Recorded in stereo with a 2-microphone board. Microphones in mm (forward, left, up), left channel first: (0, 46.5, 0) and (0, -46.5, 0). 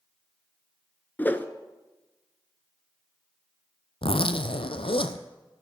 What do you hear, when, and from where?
1.2 s a whoosh: 20° left (ahead or behind), 0.7 m
4.0 s a zipper: 75° left (ahead or behind), 0.7 m